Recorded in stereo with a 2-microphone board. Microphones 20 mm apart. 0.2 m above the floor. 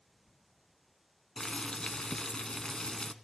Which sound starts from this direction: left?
Boiling, at 1.4 s.